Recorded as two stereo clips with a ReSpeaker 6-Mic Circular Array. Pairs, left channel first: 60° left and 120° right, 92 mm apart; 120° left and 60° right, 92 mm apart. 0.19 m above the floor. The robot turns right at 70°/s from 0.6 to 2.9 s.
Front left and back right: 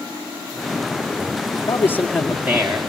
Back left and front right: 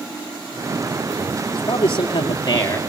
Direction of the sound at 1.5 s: 95° left.